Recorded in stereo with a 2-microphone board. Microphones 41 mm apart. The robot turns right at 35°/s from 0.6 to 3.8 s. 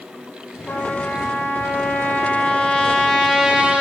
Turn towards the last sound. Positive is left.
turn(degrees=-155)